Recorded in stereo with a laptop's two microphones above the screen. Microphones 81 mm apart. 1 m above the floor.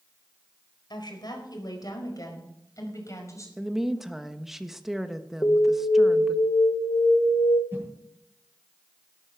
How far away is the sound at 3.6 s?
About 1.3 m.